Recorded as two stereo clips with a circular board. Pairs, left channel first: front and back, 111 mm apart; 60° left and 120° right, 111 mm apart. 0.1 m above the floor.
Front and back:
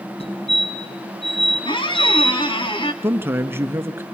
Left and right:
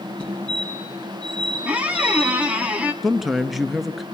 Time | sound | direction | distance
0.2 | a fire alarm | 20° right | 7.5 m
1.6 | a squeak | 40° right | 2.5 m
3.0 | a man speaking | 150° left | 1.2 m